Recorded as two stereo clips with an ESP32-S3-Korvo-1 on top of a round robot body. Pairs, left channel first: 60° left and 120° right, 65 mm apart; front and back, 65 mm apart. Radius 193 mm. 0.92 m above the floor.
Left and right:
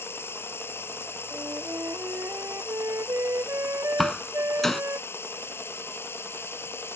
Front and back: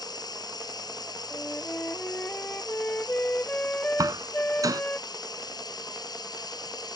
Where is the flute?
70° right.